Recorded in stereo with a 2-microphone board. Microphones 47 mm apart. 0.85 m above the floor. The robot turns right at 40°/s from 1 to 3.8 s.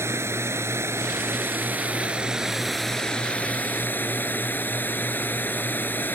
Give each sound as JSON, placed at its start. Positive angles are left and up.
{"t": 0.0, "sound": "running water", "azimuth_deg": -65}